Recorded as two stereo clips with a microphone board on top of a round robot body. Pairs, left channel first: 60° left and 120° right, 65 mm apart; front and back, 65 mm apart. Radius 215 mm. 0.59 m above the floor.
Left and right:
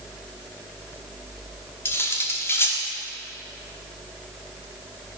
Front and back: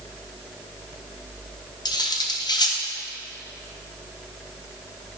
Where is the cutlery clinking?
10° left, 1.1 m.